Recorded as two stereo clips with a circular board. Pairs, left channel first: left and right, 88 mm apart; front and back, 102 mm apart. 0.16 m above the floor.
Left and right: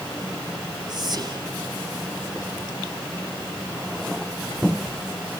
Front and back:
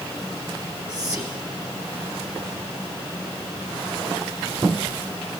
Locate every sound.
0.9 s whispering: 110° right, 1.7 m